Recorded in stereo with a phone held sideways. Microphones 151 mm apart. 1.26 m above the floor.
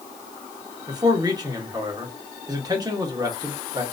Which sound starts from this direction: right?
A man speaking, at 0.9 s.